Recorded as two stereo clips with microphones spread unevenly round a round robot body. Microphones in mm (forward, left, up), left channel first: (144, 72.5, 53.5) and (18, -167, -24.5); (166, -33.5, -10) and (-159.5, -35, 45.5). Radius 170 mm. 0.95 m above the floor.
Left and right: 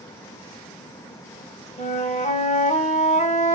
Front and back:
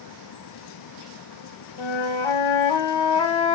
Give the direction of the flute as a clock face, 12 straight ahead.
12 o'clock.